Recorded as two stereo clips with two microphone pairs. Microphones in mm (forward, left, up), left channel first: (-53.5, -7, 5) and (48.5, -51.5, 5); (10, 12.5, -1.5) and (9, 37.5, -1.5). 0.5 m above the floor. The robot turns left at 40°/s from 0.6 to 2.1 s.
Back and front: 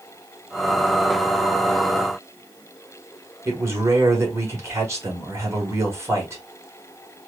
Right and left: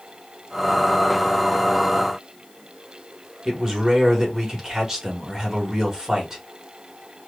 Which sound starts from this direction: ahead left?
A man speaking, at 3.5 s.